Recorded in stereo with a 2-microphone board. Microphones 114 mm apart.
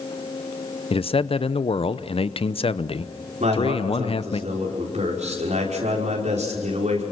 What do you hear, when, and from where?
0.9 s a man speaking: 55° left (ahead or behind), 0.7 m
3.4 s a man speaking: 85° right, 5.5 m